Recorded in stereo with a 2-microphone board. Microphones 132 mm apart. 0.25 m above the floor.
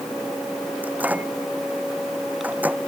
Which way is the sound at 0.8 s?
10° right (ahead or behind).